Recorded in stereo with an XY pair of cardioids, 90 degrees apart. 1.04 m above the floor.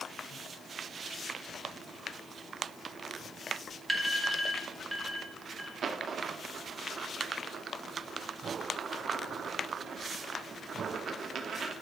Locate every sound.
3.9 s an alarm: 5° right, 1.9 m
5.8 s a dropped coin: 60° right, 1.0 m